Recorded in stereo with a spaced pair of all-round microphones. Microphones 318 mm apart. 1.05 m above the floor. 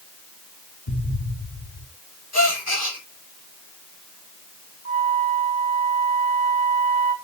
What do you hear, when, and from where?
0.9 s an explosion: 70° left (ahead or behind), 1.6 m
2.3 s a gasp: 50° left (ahead or behind), 3.5 m
4.8 s a flute: 45° left (ahead or behind), 3.5 m